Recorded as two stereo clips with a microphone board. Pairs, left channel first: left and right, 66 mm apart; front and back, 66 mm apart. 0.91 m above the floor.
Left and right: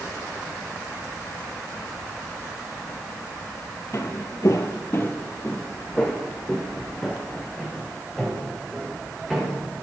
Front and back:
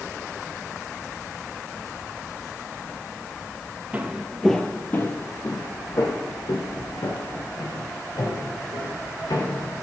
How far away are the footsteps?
About 1.4 m.